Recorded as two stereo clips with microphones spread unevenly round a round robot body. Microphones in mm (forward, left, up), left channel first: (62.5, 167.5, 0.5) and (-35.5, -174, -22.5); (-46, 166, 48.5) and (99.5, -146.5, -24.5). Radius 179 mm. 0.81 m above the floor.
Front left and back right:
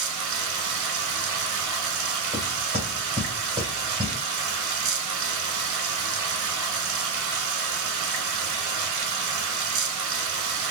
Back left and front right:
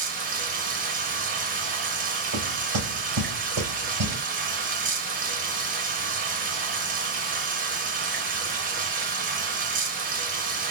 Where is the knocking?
30° right, 3 m.